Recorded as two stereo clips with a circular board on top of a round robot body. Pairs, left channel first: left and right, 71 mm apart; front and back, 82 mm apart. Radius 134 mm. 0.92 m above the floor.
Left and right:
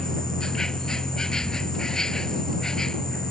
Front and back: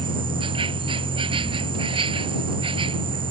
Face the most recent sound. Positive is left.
turn(degrees=170)